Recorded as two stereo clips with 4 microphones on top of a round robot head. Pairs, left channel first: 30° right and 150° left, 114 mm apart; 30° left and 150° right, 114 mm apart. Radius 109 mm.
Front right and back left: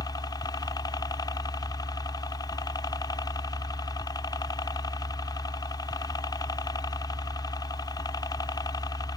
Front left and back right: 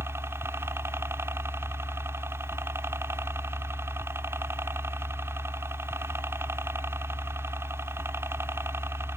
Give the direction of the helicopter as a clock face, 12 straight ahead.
3 o'clock.